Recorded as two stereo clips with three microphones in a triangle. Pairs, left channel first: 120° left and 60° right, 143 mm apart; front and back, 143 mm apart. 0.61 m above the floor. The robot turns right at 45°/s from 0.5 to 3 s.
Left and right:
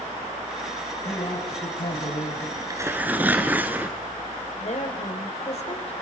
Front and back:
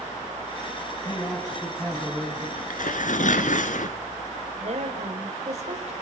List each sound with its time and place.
1.1 s a man speaking: 65° left, 3.5 m; by 2.5 s 125° left, 3.5 m
2.6 s tearing paper: 5° right, 1.6 m; by 4.0 s 15° left, 1.6 m
4.6 s a woman speaking: 150° left, 3 m